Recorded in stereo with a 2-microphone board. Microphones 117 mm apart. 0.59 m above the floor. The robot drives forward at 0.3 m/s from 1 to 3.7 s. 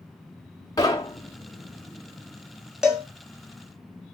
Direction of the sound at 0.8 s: 30° left (ahead or behind).